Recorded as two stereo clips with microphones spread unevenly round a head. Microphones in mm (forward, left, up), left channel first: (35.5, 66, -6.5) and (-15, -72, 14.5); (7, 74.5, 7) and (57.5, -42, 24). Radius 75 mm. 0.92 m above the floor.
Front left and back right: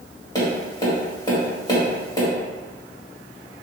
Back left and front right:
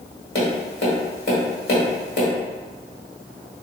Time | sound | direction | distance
0.3 | tapping | 140° left | 1.5 m